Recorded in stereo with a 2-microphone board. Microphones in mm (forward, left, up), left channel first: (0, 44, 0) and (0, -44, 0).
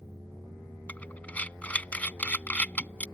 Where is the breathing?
15° left (ahead or behind).